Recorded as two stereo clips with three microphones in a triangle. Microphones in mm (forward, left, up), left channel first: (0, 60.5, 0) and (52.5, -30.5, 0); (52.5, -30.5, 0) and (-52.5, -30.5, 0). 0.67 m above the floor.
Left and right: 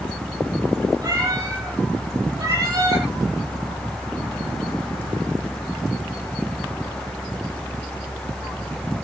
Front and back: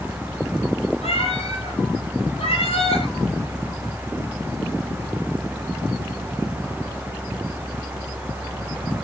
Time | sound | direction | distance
1.0 | a cat meowing | 10° right | 9 m